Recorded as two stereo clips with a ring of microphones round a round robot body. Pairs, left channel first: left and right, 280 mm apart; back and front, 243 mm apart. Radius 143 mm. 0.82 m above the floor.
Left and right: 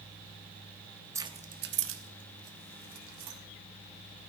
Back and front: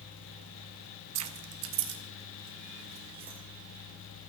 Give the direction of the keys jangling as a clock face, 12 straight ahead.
12 o'clock.